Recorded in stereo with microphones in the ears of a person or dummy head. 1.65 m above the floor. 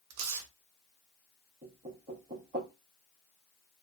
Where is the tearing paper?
80° right, 0.7 m.